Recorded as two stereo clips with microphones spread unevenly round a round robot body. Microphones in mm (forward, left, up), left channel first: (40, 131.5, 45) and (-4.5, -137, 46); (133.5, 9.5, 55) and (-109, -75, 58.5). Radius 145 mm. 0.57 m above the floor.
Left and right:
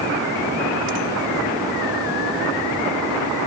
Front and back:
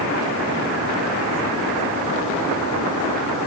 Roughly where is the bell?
No bell in this recording.